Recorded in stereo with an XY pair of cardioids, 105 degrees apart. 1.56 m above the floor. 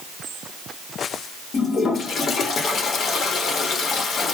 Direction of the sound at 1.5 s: 55° left.